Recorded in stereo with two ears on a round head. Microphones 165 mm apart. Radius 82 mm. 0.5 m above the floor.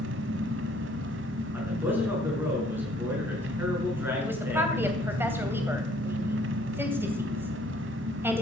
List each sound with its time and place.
0.0 s an engine running: 75° right (ahead or behind), 1.4 m
1.5 s a man speaking: 10° right (ahead or behind), 7 m
4.2 s a woman speaking: 10° right (ahead or behind), 2.5 m